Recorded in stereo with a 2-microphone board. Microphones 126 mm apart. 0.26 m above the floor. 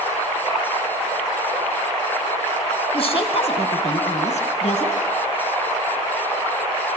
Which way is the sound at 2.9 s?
50° left (ahead or behind).